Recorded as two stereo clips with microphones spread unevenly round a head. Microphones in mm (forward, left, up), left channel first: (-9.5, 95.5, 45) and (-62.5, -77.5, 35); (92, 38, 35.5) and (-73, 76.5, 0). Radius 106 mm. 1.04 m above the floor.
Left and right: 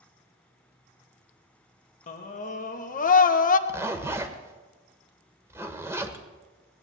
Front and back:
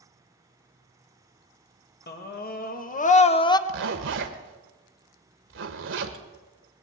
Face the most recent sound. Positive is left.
turn(degrees=175)